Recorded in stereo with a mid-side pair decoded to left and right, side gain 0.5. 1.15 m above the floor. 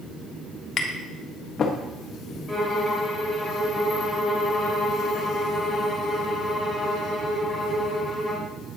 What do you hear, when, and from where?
0.8 s tapping: 45° left, 1.3 m
2.5 s a violin: straight ahead, 2.5 m